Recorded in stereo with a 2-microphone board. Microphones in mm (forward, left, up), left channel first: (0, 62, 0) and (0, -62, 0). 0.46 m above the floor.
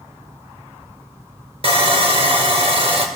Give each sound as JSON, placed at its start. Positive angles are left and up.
{"t": 1.6, "sound": "sawing", "side_deg": -50, "distance_m": 1.7}